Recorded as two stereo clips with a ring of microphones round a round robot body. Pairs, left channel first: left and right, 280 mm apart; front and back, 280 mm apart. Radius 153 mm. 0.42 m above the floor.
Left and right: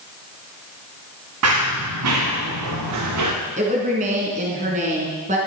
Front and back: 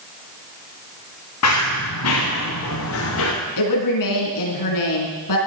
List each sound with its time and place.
1.4 s running footsteps: 45° right, 4 m; by 3.3 s 50° right, 5 m
3.6 s a woman speaking: 25° right, 4.5 m